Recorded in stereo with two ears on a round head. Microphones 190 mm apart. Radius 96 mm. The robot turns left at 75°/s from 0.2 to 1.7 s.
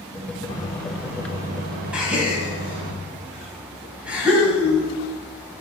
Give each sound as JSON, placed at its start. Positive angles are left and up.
{"t": 0.5, "sound": "a microwave", "azimuth_deg": 30, "distance_m": 1.0}
{"t": 1.9, "sound": "a gasp", "side_deg": -5, "distance_m": 2.5}